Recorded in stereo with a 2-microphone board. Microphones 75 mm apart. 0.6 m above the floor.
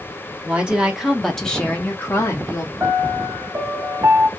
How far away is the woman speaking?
About 1.3 m.